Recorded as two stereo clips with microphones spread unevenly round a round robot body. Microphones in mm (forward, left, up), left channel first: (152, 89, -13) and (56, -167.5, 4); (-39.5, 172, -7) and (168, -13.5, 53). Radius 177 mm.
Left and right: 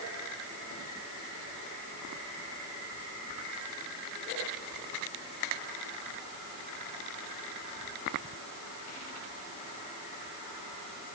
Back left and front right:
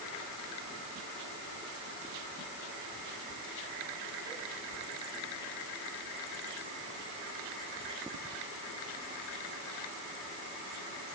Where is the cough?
No cough in this recording.